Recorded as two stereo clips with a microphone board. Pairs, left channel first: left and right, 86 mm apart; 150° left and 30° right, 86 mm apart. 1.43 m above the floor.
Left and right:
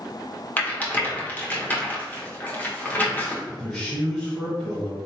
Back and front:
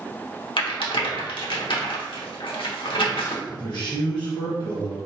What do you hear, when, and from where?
0.6 s a rattle: 160° left, 0.9 m
3.5 s a man speaking: 175° left, 1.0 m